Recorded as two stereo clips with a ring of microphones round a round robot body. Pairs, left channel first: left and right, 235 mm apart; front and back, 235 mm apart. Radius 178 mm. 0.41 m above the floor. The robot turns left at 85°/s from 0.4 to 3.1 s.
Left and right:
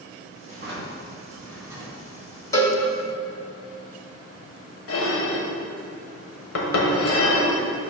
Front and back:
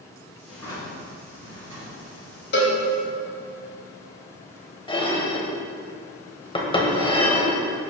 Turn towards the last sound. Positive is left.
turn(degrees=70)